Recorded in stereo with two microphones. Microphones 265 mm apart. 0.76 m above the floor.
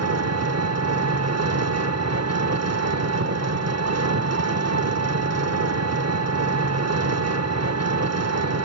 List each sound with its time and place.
0.0 s an engine running: 70° right (ahead or behind), 0.7 m